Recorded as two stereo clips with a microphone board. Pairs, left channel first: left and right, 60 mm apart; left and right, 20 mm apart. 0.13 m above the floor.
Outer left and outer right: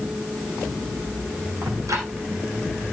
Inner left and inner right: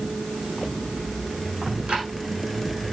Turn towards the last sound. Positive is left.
turn(degrees=-70)  # may be behind; listen again after turning